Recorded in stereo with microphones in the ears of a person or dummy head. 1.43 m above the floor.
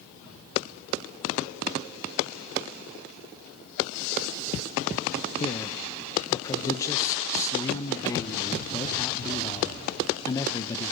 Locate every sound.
5.4 s a man speaking: 15° left (ahead or behind), 1.1 m